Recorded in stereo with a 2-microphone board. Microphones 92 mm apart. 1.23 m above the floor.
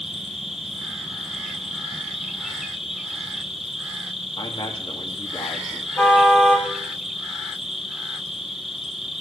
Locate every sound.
0.0 s an insect: centre (ahead or behind), 2.5 m
4.4 s a man speaking: 80° left, 3 m
6.0 s a car horn: 20° left (ahead or behind), 3.5 m